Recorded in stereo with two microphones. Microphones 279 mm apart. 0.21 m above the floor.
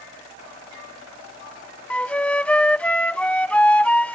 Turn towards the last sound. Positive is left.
turn(degrees=5)  # may be behind; listen again after turning